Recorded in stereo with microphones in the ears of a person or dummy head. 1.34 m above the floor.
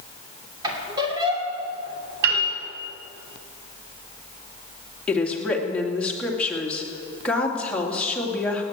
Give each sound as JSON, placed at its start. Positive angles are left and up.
{"t": 0.6, "sound": "a squeak", "side_deg": -25, "distance_m": 2.5}
{"t": 2.2, "sound": "a piano", "side_deg": -50, "distance_m": 1.9}
{"t": 5.1, "sound": "a woman speaking", "side_deg": 5, "distance_m": 2.5}